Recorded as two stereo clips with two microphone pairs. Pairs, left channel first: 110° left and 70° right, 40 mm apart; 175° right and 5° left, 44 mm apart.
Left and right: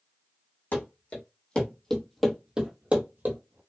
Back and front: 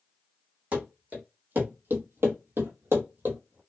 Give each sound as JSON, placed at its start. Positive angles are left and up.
{"t": 0.7, "sound": "running footsteps", "azimuth_deg": 65, "distance_m": 1.3}